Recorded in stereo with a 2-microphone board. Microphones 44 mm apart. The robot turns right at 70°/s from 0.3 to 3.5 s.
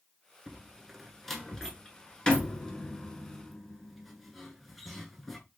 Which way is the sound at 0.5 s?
15° right (ahead or behind).